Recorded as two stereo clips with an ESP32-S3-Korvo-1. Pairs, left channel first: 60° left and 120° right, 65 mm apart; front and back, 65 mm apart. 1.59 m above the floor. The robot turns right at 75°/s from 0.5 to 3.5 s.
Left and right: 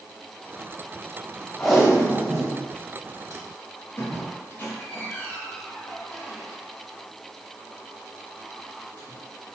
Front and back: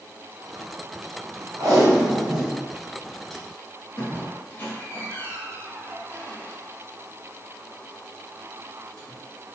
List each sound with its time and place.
1.6 s tape being pulled: 140° left, 0.8 m; by 4.3 s 75° right, 0.8 m
4.0 s a squeak: 30° left, 0.6 m